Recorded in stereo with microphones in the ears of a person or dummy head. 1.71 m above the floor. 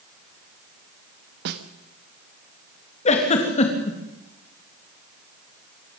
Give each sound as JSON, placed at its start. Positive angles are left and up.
{"t": 1.4, "sound": "a snare drum", "side_deg": -55, "distance_m": 1.5}
{"t": 3.0, "sound": "a giggle", "side_deg": 35, "distance_m": 3.0}